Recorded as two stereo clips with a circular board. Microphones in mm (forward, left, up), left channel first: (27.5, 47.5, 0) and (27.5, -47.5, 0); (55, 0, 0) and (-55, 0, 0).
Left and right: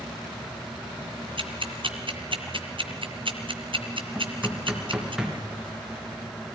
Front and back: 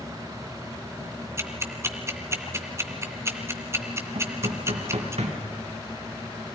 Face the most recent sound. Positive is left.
turn(degrees=-170)